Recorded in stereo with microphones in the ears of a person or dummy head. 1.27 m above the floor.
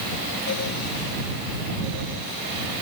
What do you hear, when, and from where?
Only background noise.